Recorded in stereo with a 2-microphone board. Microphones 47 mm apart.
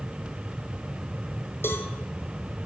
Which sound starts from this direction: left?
A cowbell, at 1.6 s.